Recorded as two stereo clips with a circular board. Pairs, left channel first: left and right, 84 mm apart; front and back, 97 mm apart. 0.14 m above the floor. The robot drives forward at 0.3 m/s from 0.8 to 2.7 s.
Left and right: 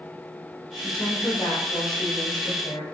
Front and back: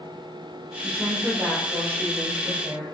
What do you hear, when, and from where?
0.8 s a woman speaking: 110° left, 3 m; by 2.8 s 120° left, 3.5 m